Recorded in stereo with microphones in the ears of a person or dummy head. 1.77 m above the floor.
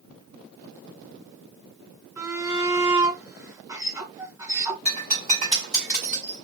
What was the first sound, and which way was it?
A shout, 20° right (ahead or behind).